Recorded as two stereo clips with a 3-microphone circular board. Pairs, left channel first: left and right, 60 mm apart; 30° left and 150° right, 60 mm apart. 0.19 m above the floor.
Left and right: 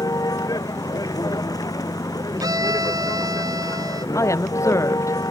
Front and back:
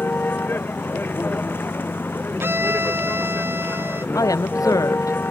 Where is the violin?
100° right.